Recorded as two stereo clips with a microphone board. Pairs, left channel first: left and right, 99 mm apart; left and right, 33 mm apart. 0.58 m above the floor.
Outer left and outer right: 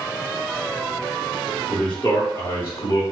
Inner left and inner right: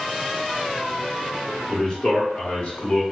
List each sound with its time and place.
1.7 s a man speaking: 15° left (ahead or behind), 2.0 m; by 3.0 s 45° left (ahead or behind), 1.5 m